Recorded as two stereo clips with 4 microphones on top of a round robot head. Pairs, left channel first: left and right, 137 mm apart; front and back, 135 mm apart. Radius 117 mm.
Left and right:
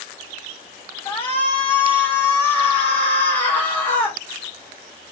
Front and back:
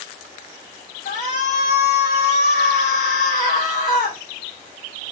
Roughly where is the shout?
Ahead.